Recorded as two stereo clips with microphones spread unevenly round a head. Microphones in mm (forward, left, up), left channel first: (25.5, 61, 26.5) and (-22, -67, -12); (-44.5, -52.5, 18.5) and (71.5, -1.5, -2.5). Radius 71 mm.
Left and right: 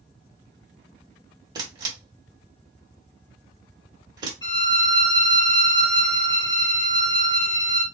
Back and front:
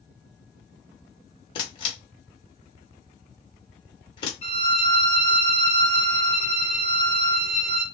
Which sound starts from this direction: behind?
A camera shutter, at 1.6 s.